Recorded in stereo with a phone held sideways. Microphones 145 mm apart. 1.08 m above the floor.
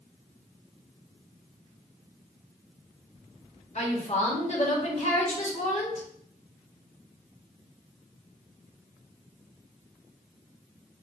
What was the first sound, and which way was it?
A woman speaking, 50° left (ahead or behind).